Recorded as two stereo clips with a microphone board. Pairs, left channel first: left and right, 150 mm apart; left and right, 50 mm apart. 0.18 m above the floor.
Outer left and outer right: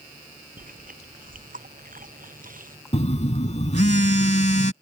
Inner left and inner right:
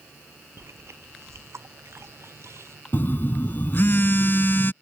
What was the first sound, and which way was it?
Chewing, 65° right (ahead or behind).